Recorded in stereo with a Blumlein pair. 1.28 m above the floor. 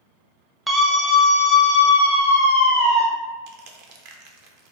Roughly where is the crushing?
Ahead right.